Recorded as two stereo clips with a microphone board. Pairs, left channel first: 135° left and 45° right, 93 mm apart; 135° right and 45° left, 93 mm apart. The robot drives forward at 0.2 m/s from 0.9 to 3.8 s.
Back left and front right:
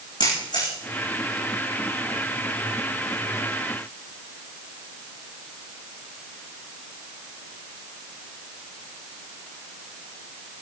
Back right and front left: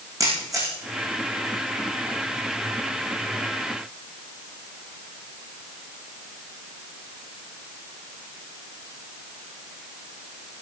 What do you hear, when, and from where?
0.2 s a camera shutter: 100° left, 9.5 m